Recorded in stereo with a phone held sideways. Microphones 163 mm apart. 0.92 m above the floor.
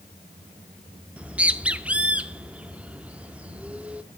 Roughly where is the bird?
Centre.